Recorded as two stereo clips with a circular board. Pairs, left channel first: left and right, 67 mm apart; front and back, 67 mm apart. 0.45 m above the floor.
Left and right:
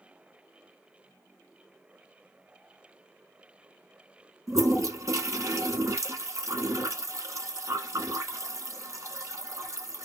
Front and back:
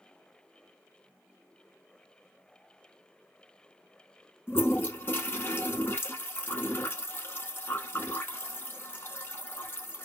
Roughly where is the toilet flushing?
Ahead right.